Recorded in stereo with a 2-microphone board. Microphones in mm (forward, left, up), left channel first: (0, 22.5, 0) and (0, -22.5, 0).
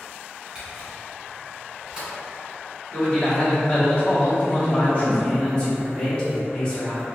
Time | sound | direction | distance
0.6 | a camera shutter | 15° right (ahead or behind) | 1.8 m
2.9 | a man speaking | 35° left (ahead or behind) | 1.3 m
4.5 | a man speaking | 25° left (ahead or behind) | 0.8 m